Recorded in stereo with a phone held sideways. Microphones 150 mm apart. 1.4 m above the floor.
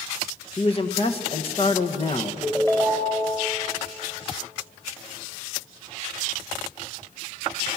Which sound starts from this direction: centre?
A ringtone, at 2.4 s.